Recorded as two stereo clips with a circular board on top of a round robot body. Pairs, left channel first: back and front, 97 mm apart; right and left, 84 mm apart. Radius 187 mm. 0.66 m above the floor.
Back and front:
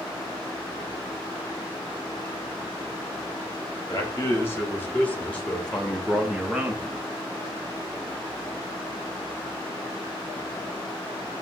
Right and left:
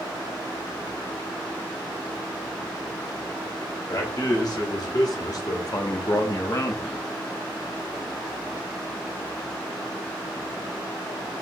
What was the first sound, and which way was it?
A man speaking, 120° right.